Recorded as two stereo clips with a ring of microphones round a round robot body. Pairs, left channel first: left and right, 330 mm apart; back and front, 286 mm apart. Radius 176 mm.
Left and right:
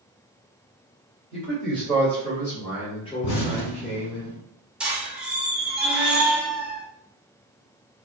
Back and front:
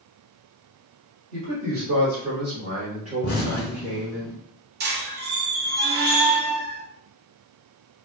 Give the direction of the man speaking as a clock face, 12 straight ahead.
12 o'clock.